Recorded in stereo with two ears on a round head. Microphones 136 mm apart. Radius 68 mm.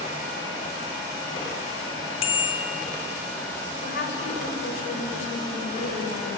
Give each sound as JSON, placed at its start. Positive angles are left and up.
{"t": 2.2, "sound": "a bicycle bell", "side_deg": 40, "distance_m": 4.0}
{"t": 3.8, "sound": "a woman speaking", "side_deg": 75, "distance_m": 7.0}